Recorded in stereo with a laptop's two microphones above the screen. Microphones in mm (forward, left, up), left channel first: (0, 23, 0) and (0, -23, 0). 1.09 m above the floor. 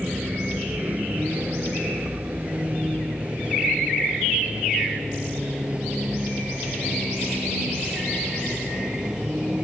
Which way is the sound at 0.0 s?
35° right (ahead or behind).